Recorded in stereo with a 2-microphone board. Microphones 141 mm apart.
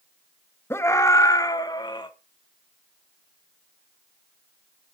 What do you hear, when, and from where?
0.7 s a scream: 15° left (ahead or behind), 1.5 m; by 2.1 s 35° left (ahead or behind), 2.5 m